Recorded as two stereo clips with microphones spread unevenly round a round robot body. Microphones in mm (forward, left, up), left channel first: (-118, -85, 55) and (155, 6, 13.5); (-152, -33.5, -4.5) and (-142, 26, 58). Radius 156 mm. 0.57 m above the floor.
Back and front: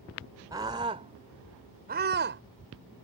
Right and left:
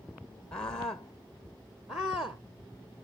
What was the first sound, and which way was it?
A scream, 55° right.